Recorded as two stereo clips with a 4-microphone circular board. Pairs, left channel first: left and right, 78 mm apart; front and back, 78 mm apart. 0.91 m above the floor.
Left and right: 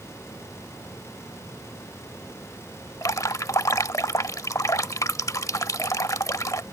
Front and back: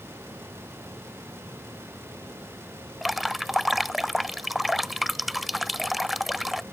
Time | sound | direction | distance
3.0 | dripping | 90° left | ?